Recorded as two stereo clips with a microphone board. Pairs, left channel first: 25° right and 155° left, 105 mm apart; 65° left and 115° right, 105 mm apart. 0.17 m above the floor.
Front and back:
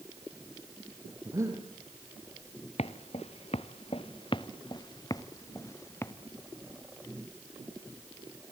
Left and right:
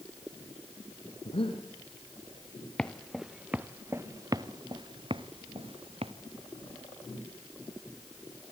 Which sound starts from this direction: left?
Breathing, at 1.2 s.